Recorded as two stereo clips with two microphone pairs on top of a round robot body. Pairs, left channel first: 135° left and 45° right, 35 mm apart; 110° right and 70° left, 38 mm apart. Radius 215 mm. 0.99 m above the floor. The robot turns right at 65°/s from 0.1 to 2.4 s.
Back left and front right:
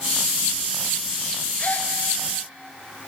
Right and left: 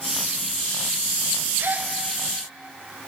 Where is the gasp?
85° left, 1.0 m; by 1.9 s 105° left, 1.0 m.